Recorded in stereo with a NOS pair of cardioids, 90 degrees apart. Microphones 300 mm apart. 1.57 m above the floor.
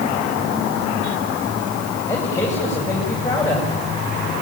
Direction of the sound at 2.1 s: 10° left.